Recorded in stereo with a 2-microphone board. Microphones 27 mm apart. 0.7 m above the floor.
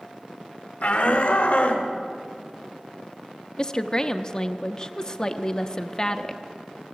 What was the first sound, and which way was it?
A shout, 65° left (ahead or behind).